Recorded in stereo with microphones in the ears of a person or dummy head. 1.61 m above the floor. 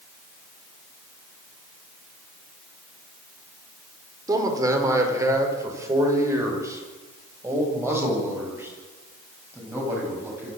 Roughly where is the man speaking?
Centre.